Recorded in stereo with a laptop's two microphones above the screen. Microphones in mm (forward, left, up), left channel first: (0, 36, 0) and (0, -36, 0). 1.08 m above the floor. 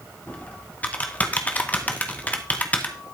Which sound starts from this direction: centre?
Typing on a keyboard, at 0.3 s.